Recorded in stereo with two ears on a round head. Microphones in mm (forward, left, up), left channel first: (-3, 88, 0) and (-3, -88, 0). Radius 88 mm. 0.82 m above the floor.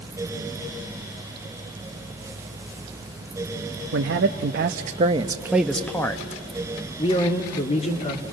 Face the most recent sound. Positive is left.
turn(degrees=35)  # may be behind; listen again after turning